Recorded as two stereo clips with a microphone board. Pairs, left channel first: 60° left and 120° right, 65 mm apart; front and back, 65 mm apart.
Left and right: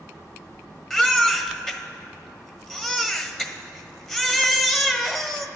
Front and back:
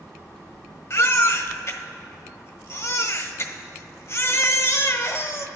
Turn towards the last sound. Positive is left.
turn(degrees=-20)